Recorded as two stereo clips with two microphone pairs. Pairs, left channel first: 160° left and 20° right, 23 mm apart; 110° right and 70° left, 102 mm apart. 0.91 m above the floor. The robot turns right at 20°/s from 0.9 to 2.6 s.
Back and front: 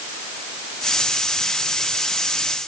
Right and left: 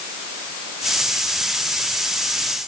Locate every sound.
Only background noise.